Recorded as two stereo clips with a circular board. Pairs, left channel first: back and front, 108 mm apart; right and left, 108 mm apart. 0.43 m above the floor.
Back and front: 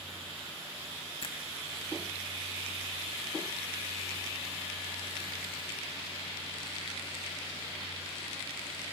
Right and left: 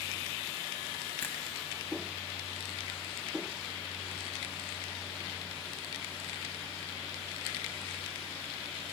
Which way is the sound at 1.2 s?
160° right.